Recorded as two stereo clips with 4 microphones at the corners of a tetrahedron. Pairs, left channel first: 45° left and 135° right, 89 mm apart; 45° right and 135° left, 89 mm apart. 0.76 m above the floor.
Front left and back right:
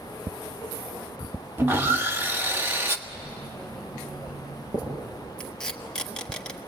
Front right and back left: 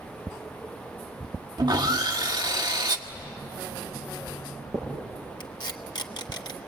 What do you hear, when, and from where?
1.6 s sawing: 160° left, 1.2 m
3.1 s writing: 160° right, 8 m
5.4 s tape being pulled: 35° right, 1.3 m